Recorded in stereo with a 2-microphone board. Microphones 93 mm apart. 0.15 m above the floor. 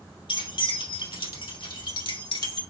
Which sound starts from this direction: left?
Keys jangling, at 0.3 s.